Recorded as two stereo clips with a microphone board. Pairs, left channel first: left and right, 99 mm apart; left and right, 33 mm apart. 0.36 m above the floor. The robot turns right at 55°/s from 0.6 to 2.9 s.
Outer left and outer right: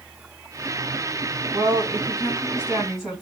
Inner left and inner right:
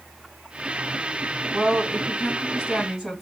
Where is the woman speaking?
90° right, 2 m; by 3.2 s 15° right, 2 m.